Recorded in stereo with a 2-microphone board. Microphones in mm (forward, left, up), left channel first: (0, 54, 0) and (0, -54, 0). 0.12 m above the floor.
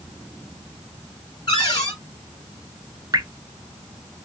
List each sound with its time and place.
1.5 s a cupboard door: 40° left (ahead or behind), 3 m
3.1 s dripping: 40° right (ahead or behind), 0.6 m